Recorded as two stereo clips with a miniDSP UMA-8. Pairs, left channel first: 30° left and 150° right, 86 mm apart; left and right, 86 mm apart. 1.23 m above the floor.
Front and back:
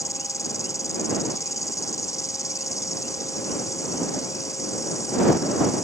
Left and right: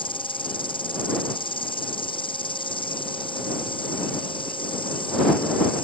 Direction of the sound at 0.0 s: 80° left.